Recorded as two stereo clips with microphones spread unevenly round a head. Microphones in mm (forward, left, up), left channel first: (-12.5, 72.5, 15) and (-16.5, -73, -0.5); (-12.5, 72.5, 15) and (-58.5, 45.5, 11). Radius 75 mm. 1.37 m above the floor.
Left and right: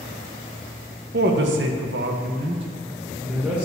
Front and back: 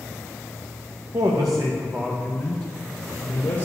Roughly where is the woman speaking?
Right.